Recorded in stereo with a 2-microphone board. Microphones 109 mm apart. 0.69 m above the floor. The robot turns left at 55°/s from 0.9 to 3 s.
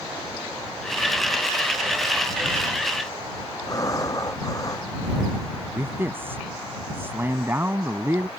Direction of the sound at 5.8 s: 20° right (ahead or behind).